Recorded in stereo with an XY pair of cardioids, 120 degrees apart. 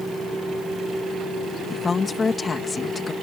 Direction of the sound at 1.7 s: 25° left.